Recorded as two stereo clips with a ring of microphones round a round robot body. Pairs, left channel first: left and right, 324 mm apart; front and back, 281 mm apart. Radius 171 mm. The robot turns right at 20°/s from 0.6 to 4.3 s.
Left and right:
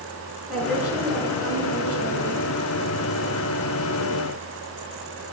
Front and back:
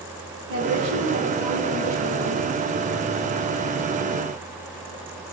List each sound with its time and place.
0.5 s a woman speaking: straight behind, 5 m; by 2.4 s 145° right, 5 m